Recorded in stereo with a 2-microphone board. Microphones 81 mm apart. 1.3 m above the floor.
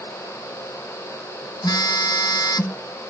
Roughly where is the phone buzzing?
Left.